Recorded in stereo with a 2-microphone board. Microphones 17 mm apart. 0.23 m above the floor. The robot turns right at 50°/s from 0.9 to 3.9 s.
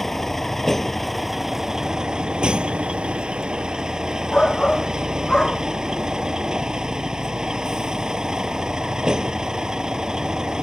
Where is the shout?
50° left (ahead or behind).